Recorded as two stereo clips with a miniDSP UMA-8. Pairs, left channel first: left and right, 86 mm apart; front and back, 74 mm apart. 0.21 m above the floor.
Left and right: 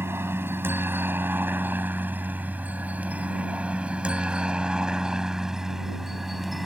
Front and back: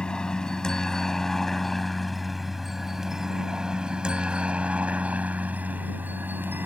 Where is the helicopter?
65° right; by 6.7 s 175° right.